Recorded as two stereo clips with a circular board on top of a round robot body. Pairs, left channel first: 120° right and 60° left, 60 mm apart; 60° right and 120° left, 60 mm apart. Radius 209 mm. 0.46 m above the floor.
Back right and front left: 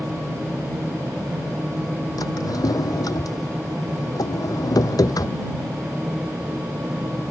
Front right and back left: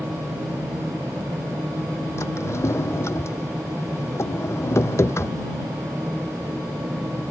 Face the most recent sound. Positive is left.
turn(degrees=-105)